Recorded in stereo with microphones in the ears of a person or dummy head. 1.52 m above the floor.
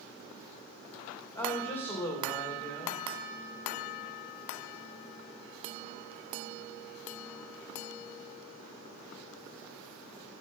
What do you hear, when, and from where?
1.4 s a woman speaking: 15° left (ahead or behind), 2.5 m